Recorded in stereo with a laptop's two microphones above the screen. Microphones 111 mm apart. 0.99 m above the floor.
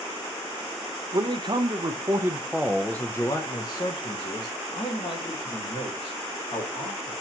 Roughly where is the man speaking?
Right.